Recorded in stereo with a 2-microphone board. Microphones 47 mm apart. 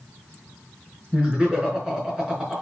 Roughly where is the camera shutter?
I don't hear a camera shutter.